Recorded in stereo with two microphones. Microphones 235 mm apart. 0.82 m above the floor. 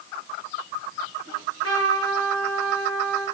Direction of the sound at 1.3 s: 75° left (ahead or behind).